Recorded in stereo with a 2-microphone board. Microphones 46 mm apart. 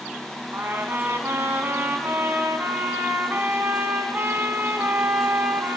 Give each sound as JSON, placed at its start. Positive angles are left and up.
{"t": 0.5, "sound": "a trumpet", "side_deg": -50, "distance_m": 1.5}